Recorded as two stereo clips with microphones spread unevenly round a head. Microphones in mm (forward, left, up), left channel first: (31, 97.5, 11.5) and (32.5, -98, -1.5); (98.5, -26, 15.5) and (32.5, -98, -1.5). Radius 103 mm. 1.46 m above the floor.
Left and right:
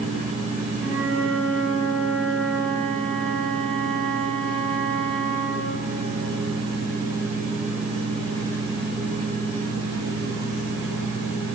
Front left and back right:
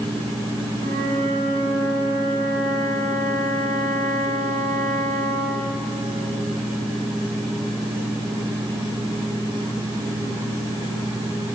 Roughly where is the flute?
Behind.